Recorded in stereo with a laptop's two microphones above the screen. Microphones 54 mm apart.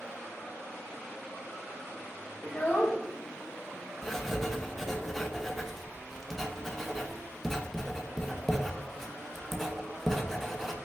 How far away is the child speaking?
About 0.6 m.